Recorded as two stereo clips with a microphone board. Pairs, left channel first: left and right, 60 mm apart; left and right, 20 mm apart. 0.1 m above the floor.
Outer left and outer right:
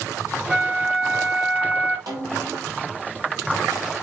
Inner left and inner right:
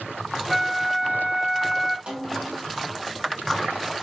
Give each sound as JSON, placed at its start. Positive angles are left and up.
{"t": 0.5, "sound": "a flute", "side_deg": -20, "distance_m": 2.5}
{"t": 2.1, "sound": "a snare drum", "side_deg": -85, "distance_m": 5.5}